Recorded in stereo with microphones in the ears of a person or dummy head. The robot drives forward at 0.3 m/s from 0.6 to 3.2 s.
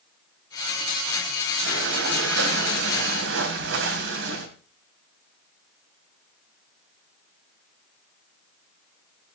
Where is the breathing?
70° right (ahead or behind), 2.5 m; by 4.5 s 65° right (ahead or behind), 2.5 m.